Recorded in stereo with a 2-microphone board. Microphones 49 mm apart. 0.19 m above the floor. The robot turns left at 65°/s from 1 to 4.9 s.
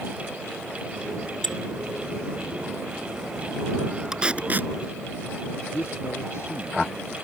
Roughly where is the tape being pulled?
Centre.